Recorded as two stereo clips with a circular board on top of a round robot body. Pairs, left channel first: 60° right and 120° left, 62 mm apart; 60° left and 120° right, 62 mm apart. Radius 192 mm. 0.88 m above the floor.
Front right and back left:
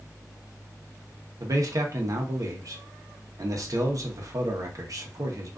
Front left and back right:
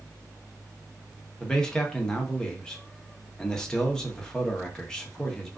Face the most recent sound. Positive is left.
turn(degrees=135)